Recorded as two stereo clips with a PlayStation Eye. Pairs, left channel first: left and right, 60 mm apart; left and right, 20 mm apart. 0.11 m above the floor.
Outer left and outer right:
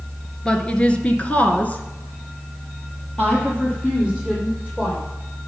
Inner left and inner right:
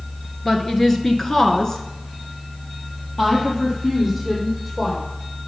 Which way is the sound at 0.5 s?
15° left (ahead or behind).